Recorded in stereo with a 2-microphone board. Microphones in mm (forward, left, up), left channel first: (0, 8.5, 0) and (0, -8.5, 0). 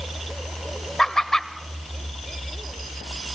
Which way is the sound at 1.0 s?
30° left (ahead or behind).